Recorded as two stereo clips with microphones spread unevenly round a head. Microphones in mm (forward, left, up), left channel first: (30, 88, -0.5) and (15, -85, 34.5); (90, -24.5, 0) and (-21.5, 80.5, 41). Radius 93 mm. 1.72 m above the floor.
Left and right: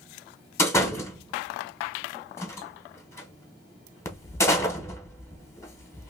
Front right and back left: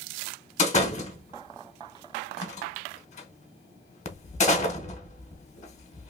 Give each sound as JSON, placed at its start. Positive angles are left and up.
{"t": 0.6, "sound": "a door slam", "azimuth_deg": 5, "distance_m": 1.1}